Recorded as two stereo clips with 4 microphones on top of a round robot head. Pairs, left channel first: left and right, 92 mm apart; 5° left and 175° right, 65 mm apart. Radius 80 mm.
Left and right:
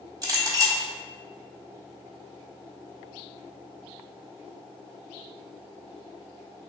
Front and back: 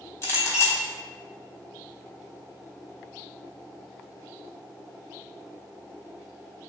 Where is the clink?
45° right, 1.6 m.